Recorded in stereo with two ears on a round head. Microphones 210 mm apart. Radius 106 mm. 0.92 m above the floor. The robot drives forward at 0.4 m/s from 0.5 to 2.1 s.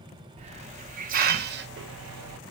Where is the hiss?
30° right (ahead or behind), 0.9 m; by 2.4 s 65° right (ahead or behind), 0.5 m.